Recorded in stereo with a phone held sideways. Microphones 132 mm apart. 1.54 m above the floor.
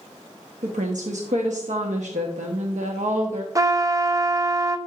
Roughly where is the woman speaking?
Right.